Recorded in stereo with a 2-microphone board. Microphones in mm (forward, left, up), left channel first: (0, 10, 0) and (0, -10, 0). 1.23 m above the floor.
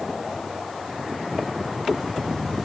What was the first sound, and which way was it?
Only background noise.